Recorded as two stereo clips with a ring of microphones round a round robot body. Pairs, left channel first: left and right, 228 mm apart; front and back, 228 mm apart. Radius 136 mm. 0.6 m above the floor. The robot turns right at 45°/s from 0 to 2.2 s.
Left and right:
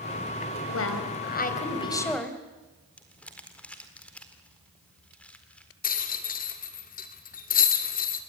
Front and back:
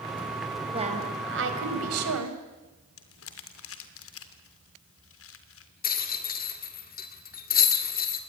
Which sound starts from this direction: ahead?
Crumpling, at 3.0 s.